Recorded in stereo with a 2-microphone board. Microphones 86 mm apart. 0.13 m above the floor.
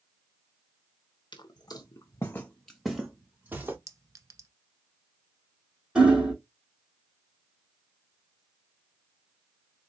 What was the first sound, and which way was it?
Footsteps, 60° left (ahead or behind).